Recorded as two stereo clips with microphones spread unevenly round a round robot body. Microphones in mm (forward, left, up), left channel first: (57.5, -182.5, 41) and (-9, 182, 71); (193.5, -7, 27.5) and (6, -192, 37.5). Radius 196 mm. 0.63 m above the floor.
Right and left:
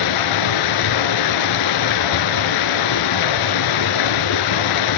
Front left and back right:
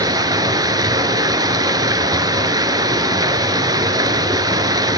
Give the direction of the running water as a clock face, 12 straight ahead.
2 o'clock.